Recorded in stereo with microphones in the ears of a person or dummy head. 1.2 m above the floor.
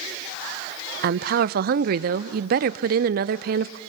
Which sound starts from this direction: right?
A woman speaking, at 1.0 s.